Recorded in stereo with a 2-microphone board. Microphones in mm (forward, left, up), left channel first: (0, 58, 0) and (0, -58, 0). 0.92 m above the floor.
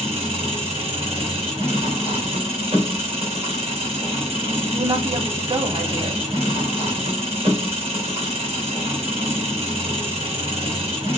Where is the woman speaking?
50° right (ahead or behind), 2 m.